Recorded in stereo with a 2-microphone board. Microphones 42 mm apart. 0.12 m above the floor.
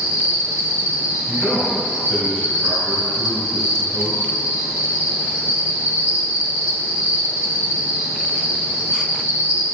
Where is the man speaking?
15° right (ahead or behind), 1.6 m.